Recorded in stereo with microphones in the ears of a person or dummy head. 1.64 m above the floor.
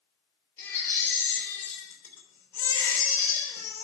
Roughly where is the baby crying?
Centre.